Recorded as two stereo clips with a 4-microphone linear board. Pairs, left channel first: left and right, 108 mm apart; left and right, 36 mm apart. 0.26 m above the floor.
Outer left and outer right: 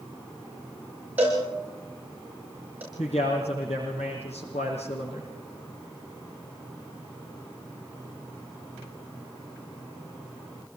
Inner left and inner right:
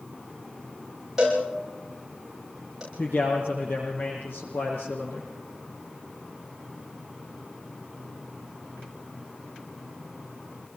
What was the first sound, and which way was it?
A cowbell, 15° right (ahead or behind).